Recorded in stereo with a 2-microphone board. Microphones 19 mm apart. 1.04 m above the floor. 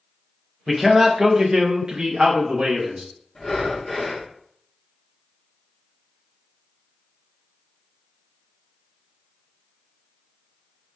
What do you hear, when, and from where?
0.7 s a man speaking: 5° right (ahead or behind), 0.8 m; by 3.0 s 80° right, 1.3 m
3.4 s breathing: 20° left (ahead or behind), 1.3 m